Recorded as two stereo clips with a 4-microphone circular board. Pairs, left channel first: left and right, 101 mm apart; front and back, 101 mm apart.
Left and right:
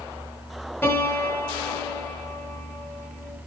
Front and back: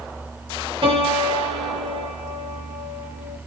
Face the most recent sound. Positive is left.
turn(degrees=155)